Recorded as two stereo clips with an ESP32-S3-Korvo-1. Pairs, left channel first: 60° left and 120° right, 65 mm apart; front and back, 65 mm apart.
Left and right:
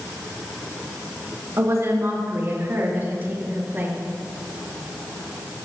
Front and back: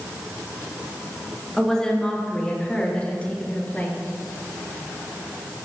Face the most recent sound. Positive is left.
turn(degrees=-60)